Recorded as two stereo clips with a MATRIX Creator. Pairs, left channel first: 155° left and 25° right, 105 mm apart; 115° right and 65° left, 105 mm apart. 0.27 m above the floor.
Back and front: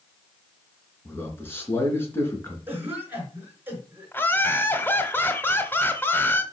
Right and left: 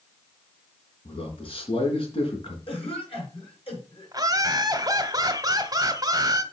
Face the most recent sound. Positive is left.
turn(degrees=95)